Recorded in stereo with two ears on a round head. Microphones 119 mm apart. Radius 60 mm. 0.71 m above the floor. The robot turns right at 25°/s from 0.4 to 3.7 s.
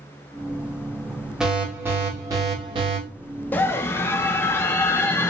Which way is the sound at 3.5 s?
10° left (ahead or behind).